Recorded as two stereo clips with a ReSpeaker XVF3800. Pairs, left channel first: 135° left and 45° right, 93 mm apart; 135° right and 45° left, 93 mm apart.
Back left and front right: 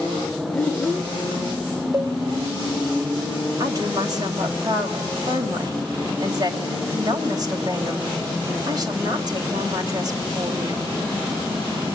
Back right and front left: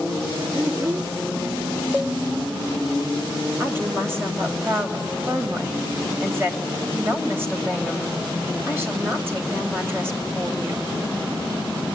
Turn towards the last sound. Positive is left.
turn(degrees=-15)